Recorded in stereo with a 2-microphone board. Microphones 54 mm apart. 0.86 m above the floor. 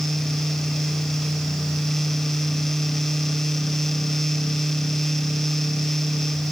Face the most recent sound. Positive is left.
No sound to turn to.